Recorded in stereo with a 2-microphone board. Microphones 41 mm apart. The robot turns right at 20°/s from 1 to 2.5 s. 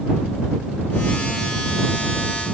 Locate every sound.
Only background noise.